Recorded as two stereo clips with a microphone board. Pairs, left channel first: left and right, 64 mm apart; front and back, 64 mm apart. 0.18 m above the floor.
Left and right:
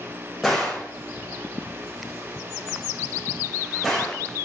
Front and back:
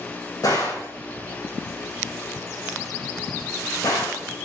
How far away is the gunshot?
About 5 m.